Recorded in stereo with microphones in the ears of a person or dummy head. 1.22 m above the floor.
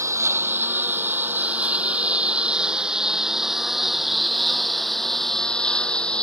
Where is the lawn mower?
10° right (ahead or behind); by 6.2 s 10° left (ahead or behind).